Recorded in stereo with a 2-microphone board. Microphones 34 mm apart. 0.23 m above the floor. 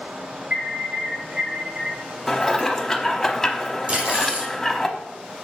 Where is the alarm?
45° right (ahead or behind), 4 m.